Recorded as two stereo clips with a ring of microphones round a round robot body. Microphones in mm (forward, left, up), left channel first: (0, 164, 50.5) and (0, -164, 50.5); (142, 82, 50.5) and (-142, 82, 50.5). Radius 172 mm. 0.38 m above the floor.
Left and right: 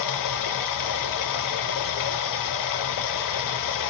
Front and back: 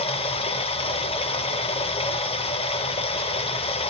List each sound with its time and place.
0.0 s running water: 70° left, 0.7 m